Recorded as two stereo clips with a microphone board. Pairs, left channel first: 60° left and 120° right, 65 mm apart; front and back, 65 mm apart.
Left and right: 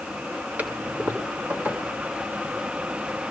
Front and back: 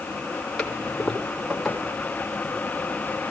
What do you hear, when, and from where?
0.6 s a toilet flushing: 85° right, 1.6 m